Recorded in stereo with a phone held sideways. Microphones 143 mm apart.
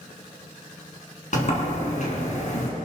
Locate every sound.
1.3 s a sliding door: 55° left (ahead or behind), 4 m